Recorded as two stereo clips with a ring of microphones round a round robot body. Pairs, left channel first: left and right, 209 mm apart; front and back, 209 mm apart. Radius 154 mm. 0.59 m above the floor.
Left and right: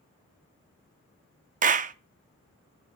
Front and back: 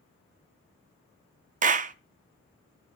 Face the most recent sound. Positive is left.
turn(degrees=-135)